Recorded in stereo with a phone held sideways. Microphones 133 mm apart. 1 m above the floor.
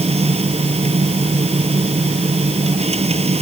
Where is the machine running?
50° right (ahead or behind).